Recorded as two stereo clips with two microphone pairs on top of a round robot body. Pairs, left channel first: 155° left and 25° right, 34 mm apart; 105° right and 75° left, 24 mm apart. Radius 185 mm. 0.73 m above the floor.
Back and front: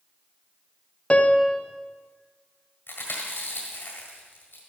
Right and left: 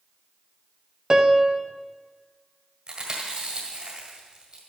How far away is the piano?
About 1.1 m.